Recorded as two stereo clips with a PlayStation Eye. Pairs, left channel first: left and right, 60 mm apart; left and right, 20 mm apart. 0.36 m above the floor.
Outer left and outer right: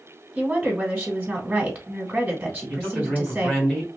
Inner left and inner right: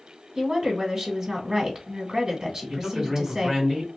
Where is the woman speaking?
20° right (ahead or behind), 1.3 m.